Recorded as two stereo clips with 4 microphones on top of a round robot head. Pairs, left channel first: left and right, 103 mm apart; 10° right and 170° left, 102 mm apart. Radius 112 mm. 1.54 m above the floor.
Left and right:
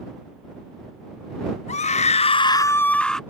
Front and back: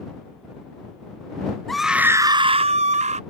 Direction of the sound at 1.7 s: 80° left.